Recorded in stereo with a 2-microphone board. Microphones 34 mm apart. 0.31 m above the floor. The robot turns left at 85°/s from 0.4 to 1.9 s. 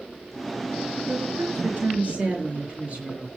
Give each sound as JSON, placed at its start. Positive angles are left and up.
{"t": 1.1, "sound": "a woman speaking", "azimuth_deg": -80, "distance_m": 7.0}